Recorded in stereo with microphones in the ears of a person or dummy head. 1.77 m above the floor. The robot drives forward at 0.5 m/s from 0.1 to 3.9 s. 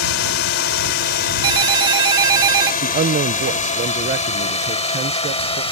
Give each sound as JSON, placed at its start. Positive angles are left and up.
{"t": 0.0, "sound": "a drone", "side_deg": 75}
{"t": 1.4, "sound": "a ringtone", "side_deg": -35}
{"t": 2.8, "sound": "a man speaking", "side_deg": -30}